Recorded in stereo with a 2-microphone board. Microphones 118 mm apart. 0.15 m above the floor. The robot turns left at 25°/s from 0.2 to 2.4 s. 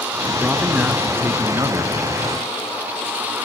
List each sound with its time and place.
0.4 s a man speaking: 10° right, 2 m; by 2.0 s 50° right, 2 m